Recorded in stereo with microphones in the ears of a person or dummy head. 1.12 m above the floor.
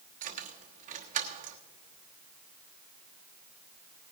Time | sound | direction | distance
0.2 | keys jangling | 40° right (ahead or behind) | 1.1 m